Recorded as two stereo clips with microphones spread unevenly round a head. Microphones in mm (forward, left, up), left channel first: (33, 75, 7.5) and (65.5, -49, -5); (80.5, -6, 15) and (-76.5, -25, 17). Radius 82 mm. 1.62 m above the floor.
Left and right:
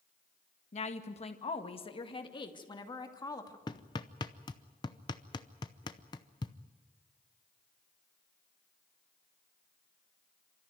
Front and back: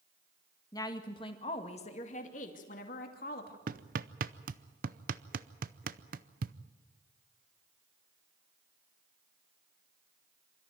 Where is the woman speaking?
80° left, 1.7 m; by 3.6 s 45° left, 2.5 m.